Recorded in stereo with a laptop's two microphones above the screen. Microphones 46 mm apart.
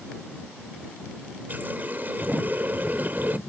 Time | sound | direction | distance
1.5 | a running tap | 45° right (ahead or behind) | ?